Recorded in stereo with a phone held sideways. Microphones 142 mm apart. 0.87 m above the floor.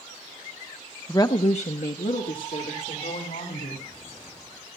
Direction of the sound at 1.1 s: 15° left (ahead or behind).